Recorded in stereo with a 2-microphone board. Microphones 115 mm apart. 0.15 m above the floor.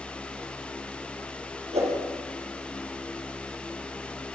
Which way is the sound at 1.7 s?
70° right (ahead or behind).